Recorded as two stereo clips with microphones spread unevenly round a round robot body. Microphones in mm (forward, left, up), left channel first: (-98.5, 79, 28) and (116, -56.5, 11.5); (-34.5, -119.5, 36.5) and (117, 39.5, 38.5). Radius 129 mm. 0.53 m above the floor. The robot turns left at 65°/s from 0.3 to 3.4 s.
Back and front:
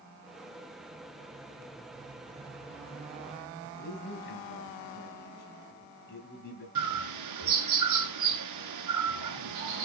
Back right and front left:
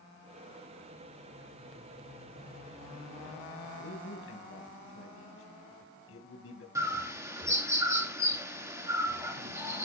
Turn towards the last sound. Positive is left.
turn(degrees=-30)